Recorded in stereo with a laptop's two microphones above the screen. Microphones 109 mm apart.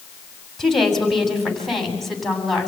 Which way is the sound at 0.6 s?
Centre (ahead or behind).